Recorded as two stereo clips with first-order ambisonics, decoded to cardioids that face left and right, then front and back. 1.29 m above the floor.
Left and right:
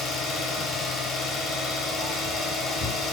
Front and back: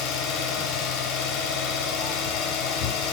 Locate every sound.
0.0 s an engine running: 25° left, 5 m